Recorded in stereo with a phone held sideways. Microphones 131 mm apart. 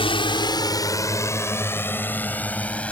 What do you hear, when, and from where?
0.0 s a drone: 45° left (ahead or behind); by 2.9 s 10° left (ahead or behind)